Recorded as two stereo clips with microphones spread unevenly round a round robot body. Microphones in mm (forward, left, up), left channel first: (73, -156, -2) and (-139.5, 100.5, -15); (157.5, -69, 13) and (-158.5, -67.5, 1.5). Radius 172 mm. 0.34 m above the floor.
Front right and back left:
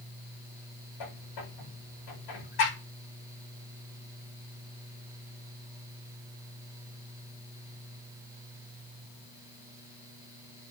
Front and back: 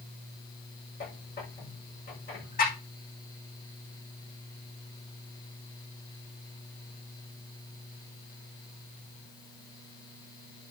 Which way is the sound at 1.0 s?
60° right.